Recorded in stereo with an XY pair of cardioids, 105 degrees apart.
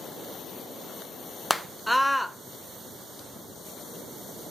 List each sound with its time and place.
1.5 s a scream: straight ahead, 1.2 m